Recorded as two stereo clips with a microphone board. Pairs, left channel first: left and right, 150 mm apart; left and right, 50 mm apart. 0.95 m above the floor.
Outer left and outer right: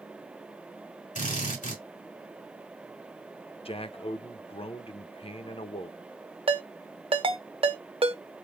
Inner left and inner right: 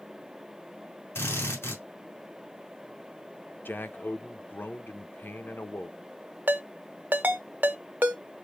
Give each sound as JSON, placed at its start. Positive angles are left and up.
{"t": 1.1, "sound": "a drill", "side_deg": 55, "distance_m": 2.5}
{"t": 3.6, "sound": "a man speaking", "side_deg": 40, "distance_m": 0.6}
{"t": 6.5, "sound": "a ringtone", "side_deg": -35, "distance_m": 0.6}